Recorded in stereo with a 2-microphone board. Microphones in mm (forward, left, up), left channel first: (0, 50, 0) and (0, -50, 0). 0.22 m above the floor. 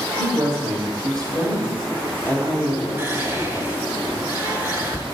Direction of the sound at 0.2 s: 45° right (ahead or behind).